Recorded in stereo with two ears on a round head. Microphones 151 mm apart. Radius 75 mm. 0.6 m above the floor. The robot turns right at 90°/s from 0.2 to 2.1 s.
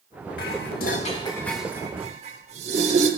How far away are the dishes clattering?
About 1.3 m.